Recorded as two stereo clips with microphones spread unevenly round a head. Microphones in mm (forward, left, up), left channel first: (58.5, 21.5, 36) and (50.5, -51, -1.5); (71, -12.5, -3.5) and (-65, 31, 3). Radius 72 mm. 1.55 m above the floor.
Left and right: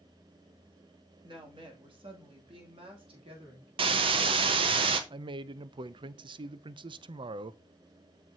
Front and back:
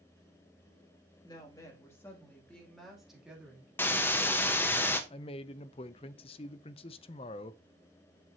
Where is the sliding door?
No sliding door in this recording.